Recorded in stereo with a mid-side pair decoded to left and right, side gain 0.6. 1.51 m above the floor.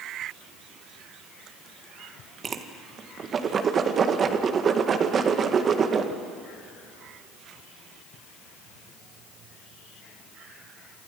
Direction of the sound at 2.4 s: 40° right.